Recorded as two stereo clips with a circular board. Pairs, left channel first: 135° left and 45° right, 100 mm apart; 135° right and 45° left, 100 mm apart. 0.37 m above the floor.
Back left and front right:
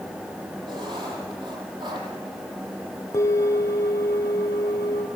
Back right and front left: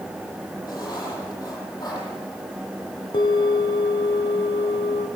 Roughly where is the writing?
Right.